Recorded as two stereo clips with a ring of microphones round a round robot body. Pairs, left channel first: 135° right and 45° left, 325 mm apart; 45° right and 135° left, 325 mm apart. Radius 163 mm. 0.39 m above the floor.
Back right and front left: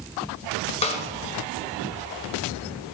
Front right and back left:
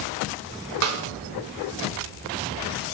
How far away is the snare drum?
About 1.7 m.